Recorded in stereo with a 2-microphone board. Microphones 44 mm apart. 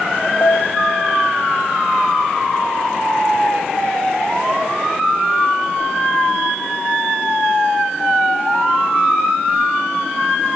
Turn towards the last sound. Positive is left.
turn(degrees=85)